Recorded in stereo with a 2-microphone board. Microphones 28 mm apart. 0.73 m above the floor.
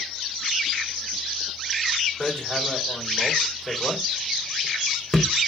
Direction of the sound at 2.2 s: 35° left (ahead or behind).